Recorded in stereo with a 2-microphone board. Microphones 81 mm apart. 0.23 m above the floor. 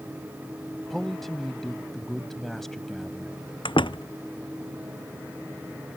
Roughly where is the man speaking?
Centre.